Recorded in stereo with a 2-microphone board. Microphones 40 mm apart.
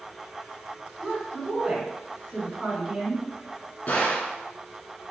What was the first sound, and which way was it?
A woman speaking, 20° right (ahead or behind).